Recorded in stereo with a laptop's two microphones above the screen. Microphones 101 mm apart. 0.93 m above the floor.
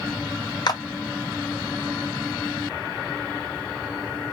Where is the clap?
45° left (ahead or behind), 0.5 m.